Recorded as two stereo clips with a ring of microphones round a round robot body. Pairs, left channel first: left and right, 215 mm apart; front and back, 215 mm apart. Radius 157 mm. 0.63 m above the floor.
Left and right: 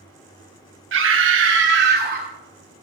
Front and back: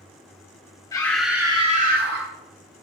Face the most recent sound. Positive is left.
turn(degrees=-145)